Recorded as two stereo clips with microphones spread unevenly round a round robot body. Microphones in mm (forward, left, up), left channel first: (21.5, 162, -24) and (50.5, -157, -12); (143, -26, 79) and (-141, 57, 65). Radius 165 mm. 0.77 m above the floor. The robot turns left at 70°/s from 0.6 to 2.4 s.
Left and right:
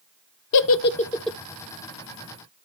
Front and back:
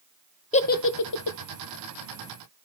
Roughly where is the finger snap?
I don't hear a finger snap.